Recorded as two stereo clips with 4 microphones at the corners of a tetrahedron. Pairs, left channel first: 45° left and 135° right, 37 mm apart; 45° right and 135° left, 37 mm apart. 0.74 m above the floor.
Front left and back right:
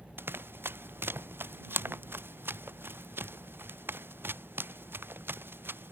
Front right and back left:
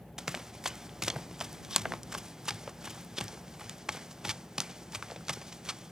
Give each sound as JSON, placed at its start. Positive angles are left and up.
{"t": 0.2, "sound": "running footsteps", "azimuth_deg": -150}